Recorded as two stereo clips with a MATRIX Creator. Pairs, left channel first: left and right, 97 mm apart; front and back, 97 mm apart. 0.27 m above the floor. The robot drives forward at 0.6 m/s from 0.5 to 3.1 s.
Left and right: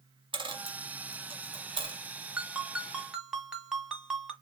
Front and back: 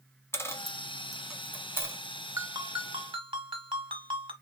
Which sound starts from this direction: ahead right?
A dropped coin, at 0.3 s.